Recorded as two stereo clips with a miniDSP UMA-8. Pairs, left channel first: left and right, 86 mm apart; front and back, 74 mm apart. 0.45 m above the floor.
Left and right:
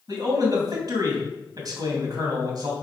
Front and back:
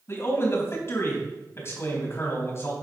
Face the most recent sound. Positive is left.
turn(degrees=-50)